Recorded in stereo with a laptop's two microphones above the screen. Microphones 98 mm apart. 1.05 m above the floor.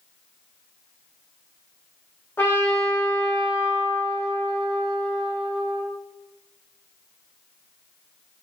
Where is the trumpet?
25° left (ahead or behind), 1.0 m.